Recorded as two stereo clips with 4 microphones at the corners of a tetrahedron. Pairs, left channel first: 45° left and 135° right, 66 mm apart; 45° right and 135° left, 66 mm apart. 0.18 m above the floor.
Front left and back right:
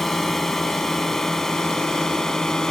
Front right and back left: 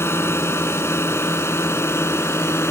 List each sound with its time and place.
0.0 s a drone: 40° right; by 2.7 s 30° right